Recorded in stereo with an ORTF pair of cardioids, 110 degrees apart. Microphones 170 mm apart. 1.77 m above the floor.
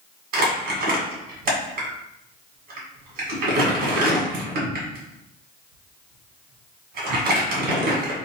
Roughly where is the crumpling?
Right.